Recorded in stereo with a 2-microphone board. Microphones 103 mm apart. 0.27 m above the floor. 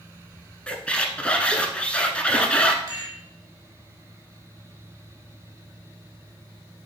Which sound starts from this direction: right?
A rattle, at 2.9 s.